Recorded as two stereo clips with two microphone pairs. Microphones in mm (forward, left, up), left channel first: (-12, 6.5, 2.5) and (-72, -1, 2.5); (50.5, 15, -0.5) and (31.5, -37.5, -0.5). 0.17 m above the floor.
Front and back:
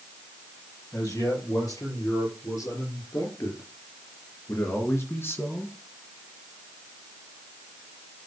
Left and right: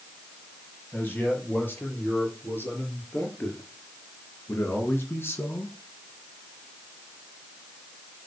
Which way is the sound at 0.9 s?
10° left.